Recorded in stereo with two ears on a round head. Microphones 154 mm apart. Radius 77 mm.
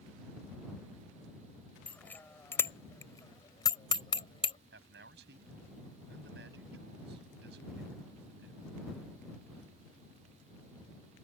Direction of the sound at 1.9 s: 10° left (ahead or behind).